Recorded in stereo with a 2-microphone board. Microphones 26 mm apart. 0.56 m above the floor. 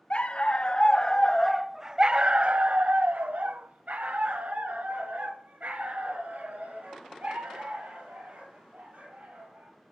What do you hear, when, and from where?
0.1 s a dog barking: 50° left (ahead or behind), 1.0 m; by 9.9 s 80° right, 4.5 m